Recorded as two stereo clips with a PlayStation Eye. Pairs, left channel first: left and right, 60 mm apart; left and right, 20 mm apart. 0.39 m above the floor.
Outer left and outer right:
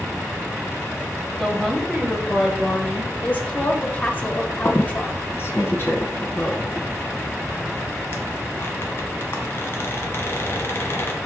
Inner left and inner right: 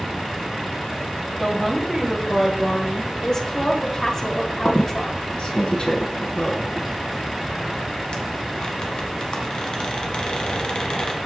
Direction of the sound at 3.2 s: 25° left (ahead or behind).